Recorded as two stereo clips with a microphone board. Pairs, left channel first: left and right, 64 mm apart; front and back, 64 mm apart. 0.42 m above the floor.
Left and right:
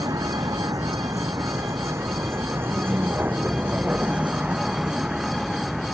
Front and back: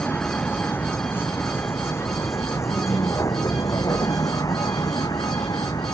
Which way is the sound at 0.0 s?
65° right.